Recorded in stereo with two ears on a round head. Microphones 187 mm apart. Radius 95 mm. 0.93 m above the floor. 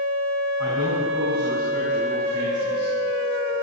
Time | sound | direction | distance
0.6 | a man speaking | 55° right (ahead or behind) | 5.5 m